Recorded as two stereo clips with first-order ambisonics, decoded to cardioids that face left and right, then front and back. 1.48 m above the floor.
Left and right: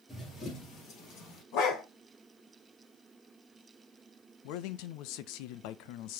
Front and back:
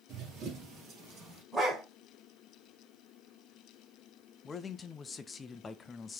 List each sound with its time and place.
0.1 s running footsteps: 160° left, 1.9 m; by 1.4 s 125° left, 2.5 m
1.5 s a dog barking: 95° left, 2 m
4.4 s a man speaking: 70° left, 0.6 m